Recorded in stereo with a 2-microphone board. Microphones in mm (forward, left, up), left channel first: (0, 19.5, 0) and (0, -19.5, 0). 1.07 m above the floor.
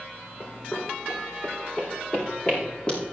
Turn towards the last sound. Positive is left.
turn(degrees=20)  # may be behind; listen again after turning